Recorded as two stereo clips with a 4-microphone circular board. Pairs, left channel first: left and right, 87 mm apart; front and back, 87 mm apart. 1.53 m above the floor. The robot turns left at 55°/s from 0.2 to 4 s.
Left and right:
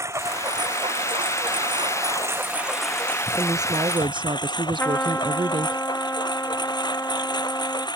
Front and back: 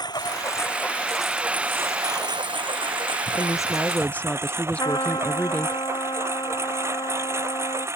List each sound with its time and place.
0.0 s a lawn mower: 35° right; by 8.0 s 120° left
3.4 s a woman speaking: 35° right; by 5.8 s 75° right
4.8 s a trumpet: 25° left